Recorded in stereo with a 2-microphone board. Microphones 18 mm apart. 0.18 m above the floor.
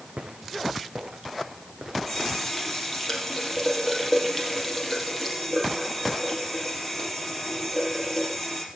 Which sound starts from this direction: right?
Footsteps, at 0.2 s.